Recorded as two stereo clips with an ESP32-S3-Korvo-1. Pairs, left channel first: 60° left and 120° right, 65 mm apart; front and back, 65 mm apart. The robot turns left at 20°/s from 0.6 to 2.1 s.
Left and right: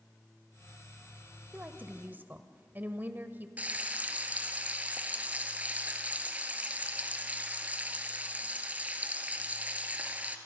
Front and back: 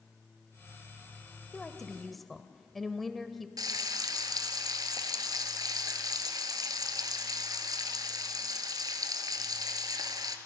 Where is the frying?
175° left, 1.8 m.